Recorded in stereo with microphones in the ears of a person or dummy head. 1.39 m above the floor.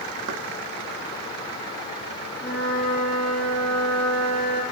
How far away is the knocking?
About 1.7 m.